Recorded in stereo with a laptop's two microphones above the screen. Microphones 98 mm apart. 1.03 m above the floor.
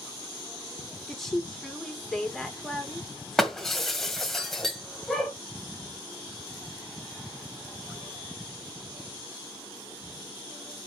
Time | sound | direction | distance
1.1 | a woman speaking | 5° left (ahead or behind) | 2.5 m
3.4 | breaking glass | 5° left (ahead or behind) | 1.7 m